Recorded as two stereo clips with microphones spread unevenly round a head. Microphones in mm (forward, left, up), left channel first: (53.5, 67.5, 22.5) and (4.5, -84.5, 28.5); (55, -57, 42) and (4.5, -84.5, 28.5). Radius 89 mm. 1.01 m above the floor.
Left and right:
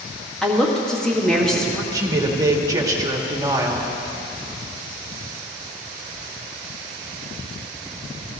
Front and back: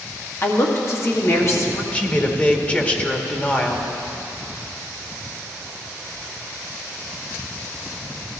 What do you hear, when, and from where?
0.4 s a woman speaking: 15° right, 2 m
1.9 s a man speaking: 40° right, 1.7 m